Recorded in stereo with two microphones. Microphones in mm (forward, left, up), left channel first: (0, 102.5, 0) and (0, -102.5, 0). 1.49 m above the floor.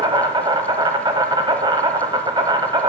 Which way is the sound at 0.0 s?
20° right (ahead or behind).